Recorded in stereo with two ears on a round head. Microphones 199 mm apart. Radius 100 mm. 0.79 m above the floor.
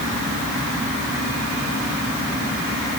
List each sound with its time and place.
Only background noise.